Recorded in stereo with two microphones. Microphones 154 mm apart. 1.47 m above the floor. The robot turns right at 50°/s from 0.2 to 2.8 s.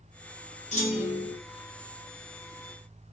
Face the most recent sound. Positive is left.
turn(degrees=180)